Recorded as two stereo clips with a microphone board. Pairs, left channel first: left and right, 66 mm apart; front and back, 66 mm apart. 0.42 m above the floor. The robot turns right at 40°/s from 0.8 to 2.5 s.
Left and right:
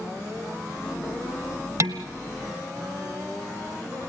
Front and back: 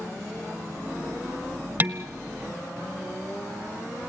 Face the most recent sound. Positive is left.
turn(degrees=-95)